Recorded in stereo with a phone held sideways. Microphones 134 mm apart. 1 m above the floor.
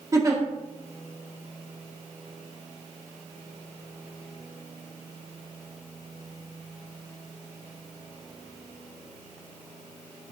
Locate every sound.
0.1 s a giggle: 25° right (ahead or behind), 1.8 m